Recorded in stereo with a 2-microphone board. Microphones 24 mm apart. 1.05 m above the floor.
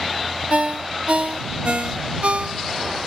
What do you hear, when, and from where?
0.5 s a ringtone: 65° right (ahead or behind)